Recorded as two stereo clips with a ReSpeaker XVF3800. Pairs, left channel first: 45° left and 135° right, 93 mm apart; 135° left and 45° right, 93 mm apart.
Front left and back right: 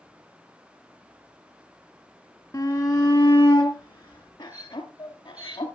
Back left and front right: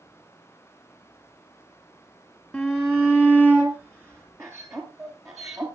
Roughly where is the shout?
Ahead left.